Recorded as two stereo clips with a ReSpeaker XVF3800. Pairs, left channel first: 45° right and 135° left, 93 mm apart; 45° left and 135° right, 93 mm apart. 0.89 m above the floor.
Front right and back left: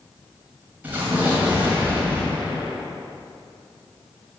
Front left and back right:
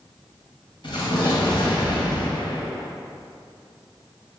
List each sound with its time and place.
0.8 s an explosion: 65° left, 2.0 m